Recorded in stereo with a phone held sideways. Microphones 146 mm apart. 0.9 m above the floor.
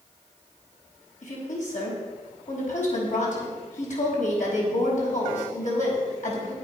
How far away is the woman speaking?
About 5 m.